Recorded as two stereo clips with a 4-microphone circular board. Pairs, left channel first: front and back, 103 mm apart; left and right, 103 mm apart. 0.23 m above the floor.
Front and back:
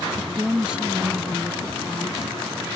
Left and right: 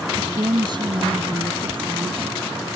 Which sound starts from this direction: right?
A woman speaking, at 0.2 s.